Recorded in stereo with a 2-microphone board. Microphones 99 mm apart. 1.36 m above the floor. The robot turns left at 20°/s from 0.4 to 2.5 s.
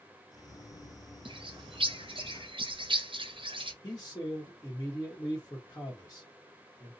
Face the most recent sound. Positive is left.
turn(degrees=25)  # may be behind; listen again after turning